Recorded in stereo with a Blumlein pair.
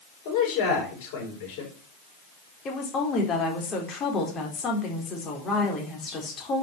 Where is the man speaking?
45° left, 6.5 m.